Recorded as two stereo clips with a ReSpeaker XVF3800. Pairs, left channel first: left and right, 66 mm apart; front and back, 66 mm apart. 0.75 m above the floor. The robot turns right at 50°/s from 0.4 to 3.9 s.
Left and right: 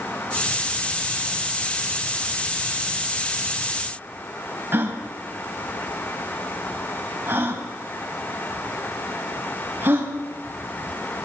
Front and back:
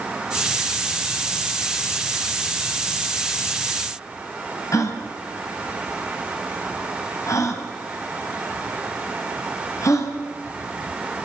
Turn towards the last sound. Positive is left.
turn(degrees=-35)